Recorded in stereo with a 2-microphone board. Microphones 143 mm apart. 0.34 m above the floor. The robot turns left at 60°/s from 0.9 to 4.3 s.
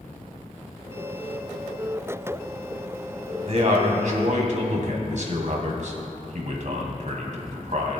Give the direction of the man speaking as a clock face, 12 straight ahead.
2 o'clock.